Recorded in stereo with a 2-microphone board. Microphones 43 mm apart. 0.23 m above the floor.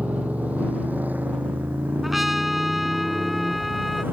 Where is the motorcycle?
40° right (ahead or behind); by 4.1 s 50° right (ahead or behind).